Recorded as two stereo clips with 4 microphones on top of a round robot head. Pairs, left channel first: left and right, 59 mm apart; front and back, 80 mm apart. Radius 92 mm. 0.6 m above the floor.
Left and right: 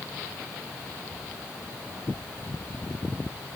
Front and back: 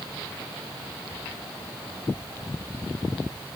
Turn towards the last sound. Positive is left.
No sound to turn to.